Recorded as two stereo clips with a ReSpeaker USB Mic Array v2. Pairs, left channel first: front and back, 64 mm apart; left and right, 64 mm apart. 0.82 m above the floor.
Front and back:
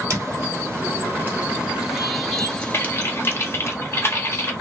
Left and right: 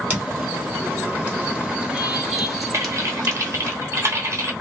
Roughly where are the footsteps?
Behind right.